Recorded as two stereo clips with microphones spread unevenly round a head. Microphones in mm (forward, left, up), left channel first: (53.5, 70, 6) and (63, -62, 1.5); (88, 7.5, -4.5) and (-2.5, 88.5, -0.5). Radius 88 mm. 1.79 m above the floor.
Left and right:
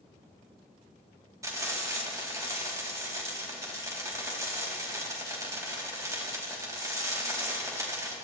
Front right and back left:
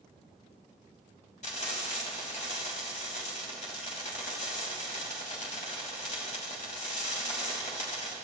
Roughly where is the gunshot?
No gunshot in this recording.